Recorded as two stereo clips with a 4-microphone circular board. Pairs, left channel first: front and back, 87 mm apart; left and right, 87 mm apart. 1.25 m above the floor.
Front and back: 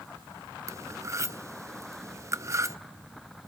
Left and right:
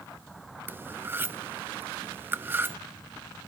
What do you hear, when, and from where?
0.7 s cutlery clinking: 145° right, 0.7 m